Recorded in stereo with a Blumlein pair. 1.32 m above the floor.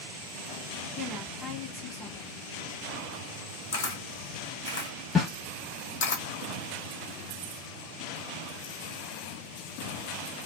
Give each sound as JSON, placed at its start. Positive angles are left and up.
{"t": 1.0, "sound": "a woman speaking", "azimuth_deg": -10, "distance_m": 1.6}
{"t": 3.7, "sound": "a camera shutter", "azimuth_deg": 50, "distance_m": 1.2}
{"t": 5.2, "sound": "a snare drum", "azimuth_deg": 10, "distance_m": 1.3}